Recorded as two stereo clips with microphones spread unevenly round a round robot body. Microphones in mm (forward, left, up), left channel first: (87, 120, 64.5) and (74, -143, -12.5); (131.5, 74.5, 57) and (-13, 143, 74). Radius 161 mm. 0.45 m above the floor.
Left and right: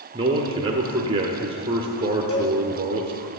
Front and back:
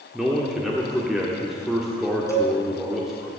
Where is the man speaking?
110° right, 1.2 m.